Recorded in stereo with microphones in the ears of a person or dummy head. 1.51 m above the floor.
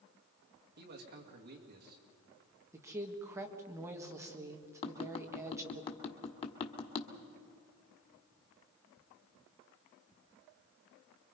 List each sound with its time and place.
0.8 s a man speaking: 50° right (ahead or behind), 2.5 m
2.7 s a woman speaking: 15° right (ahead or behind), 1.9 m
4.8 s tapping: 25° left (ahead or behind), 1.6 m